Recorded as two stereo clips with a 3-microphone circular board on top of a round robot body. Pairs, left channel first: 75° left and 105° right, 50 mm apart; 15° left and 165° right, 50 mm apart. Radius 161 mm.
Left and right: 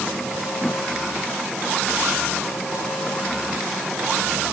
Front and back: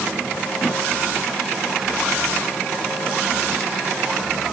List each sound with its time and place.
Only background noise.